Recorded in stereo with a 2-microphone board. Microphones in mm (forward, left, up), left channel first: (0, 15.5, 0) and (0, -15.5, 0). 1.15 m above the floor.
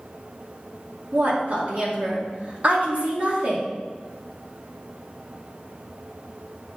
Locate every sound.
1.1 s a woman speaking: 50° right (ahead or behind), 2.5 m